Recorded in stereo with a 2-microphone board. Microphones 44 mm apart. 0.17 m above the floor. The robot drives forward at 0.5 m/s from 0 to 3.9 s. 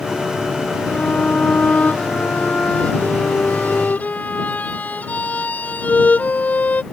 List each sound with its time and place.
0.9 s a violin: 30° left (ahead or behind); by 6.8 s 40° left (ahead or behind)